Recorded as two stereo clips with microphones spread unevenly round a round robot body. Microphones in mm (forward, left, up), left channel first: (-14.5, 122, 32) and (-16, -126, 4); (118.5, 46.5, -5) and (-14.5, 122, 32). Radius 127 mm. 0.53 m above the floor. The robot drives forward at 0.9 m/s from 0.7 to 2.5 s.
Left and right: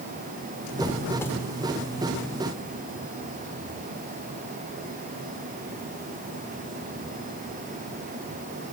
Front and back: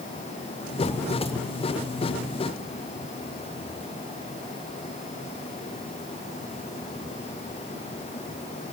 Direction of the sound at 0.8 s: 5° left.